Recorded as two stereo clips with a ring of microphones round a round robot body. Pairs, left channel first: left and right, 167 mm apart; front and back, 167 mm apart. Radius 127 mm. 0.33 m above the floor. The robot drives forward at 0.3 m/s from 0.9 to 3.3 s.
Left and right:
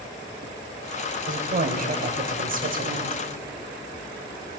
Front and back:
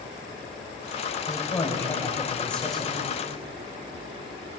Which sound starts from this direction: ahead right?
A woman speaking, at 1.2 s.